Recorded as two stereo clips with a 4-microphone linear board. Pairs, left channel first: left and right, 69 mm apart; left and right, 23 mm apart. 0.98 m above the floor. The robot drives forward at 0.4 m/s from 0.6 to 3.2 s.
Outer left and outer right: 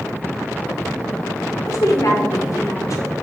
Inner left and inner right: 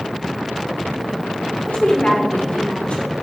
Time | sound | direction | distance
1.7 | a woman speaking | 50° left (ahead or behind) | 0.8 m